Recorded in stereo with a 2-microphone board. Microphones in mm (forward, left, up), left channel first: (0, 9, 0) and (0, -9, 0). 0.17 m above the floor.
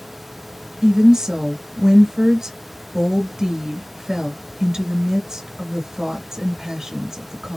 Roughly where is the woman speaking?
Right.